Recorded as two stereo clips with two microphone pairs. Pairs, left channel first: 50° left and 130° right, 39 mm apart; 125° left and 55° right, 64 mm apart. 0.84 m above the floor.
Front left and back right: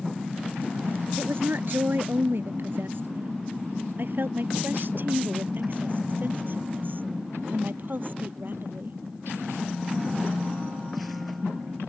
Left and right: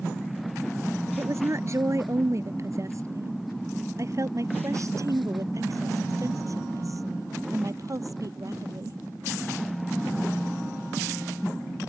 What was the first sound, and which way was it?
A woman speaking, 100° right.